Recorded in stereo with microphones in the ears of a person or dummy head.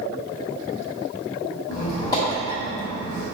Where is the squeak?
20° left (ahead or behind), 1.7 m.